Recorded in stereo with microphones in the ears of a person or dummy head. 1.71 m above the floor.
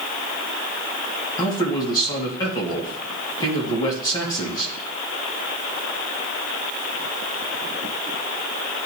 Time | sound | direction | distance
1.4 | a man speaking | 20° left (ahead or behind) | 2 m